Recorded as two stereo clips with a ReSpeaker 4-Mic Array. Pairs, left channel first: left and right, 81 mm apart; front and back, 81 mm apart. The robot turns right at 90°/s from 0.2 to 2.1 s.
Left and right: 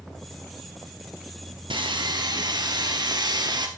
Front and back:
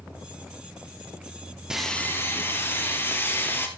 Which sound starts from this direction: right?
Sawing, at 1.7 s.